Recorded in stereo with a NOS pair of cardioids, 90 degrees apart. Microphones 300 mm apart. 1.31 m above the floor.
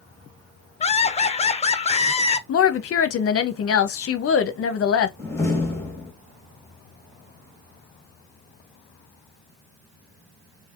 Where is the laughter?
20° left, 0.8 m.